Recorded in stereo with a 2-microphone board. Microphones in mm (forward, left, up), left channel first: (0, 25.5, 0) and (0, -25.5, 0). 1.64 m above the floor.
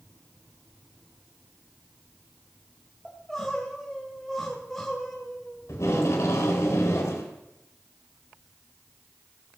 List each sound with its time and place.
3.0 s crying: 5° left (ahead or behind), 3 m
5.7 s tape being pulled: 70° left (ahead or behind), 3.5 m